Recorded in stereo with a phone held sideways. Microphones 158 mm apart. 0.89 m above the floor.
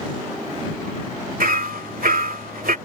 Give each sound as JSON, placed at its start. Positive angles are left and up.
{"t": 1.4, "sound": "hammering", "side_deg": -75}